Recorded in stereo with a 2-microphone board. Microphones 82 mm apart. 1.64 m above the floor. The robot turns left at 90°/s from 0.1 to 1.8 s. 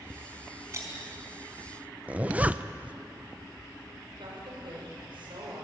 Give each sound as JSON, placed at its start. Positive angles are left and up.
{"t": 0.7, "sound": "breaking glass", "side_deg": -40, "distance_m": 4.5}
{"t": 2.1, "sound": "a zipper", "side_deg": -20, "distance_m": 0.6}
{"t": 4.2, "sound": "a woman speaking", "side_deg": -85, "distance_m": 7.5}